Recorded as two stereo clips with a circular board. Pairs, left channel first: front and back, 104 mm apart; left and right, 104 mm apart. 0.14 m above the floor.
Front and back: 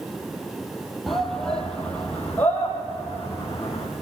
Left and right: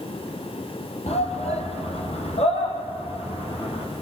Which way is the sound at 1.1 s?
90° left.